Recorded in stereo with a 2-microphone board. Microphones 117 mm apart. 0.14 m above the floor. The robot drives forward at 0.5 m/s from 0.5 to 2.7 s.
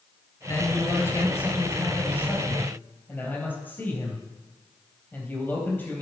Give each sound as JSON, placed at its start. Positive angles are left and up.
{"t": 0.5, "sound": "a man speaking", "side_deg": 25, "distance_m": 1.9}